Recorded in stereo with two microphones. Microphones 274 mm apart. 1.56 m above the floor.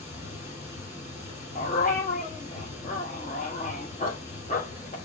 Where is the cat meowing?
No cat meowing in this recording.